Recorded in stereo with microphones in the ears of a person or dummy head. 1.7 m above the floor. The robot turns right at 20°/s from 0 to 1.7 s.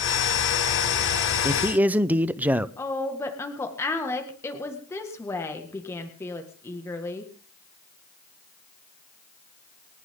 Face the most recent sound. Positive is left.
turn(degrees=15)  # may be behind; listen again after turning